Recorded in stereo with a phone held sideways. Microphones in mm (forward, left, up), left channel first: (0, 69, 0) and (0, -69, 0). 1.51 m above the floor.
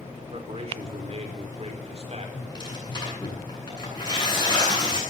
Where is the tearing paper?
35° left (ahead or behind), 9 m.